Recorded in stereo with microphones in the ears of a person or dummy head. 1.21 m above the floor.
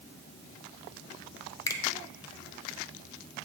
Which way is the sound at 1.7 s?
15° left (ahead or behind).